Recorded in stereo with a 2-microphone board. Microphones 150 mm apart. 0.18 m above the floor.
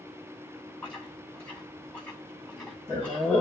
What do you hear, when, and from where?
0.8 s chewing: 5° left (ahead or behind), 7.5 m